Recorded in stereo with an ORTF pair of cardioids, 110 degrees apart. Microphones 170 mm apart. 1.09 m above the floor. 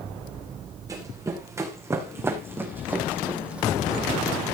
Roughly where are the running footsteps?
Ahead.